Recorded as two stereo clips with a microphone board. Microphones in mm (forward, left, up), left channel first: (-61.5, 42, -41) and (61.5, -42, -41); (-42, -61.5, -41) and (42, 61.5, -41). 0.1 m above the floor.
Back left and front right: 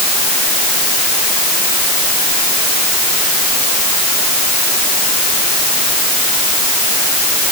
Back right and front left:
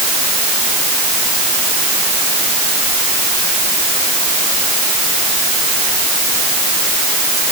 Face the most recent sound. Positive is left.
No sound to turn to.